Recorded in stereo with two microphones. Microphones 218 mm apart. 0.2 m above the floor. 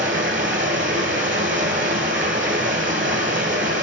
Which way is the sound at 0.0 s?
60° right (ahead or behind).